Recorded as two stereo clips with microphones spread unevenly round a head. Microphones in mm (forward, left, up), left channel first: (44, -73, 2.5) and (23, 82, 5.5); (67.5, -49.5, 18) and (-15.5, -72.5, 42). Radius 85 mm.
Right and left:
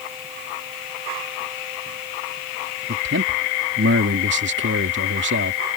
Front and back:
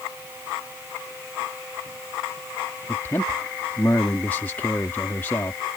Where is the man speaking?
90° left.